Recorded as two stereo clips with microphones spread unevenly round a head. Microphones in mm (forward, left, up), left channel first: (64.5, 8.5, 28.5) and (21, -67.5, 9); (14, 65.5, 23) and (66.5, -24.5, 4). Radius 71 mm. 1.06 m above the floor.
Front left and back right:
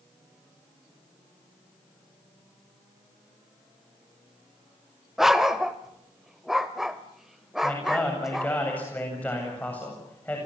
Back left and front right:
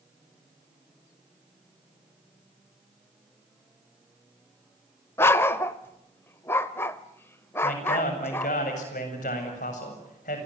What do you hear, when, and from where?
5.2 s a dog barking: 130° left, 0.8 m
7.6 s a man speaking: 140° left, 7.5 m